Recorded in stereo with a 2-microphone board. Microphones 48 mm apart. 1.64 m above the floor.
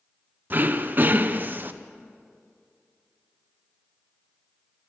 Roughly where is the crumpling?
I don't hear crumpling.